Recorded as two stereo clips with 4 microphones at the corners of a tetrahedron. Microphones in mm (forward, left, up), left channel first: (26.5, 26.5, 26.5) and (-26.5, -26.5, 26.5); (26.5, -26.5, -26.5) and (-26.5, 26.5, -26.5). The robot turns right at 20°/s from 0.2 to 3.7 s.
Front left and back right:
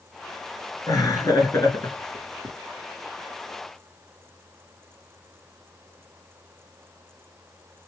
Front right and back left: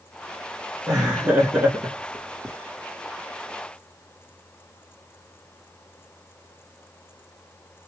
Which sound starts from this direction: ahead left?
Laughter, at 0.9 s.